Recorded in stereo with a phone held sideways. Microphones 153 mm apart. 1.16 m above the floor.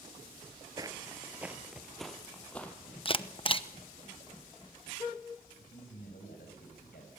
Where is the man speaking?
85° left, 6.5 m.